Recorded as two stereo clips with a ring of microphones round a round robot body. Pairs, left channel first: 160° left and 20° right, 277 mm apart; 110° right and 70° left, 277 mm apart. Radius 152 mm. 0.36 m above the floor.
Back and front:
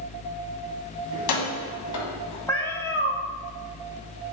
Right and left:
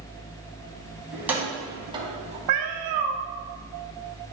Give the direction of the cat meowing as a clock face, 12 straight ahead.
10 o'clock.